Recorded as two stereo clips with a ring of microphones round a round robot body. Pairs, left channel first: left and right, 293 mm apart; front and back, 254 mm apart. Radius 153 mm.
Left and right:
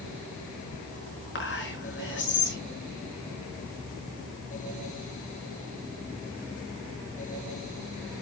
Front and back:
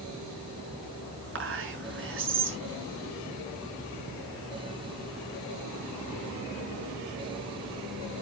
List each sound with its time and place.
1.4 s whispering: 145° left, 6 m